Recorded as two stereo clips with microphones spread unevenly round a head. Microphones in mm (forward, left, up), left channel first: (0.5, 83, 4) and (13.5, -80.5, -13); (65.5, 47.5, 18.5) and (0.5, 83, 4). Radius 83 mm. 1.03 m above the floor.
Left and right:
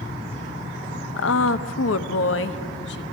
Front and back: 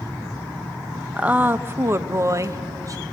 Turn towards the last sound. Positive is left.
turn(degrees=120)